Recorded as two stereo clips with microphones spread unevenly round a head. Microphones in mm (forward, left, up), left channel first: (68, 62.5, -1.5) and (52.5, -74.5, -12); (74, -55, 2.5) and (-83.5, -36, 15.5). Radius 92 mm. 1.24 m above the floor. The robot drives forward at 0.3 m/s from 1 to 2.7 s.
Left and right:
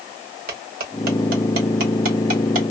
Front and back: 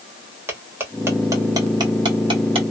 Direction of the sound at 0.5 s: 115° right.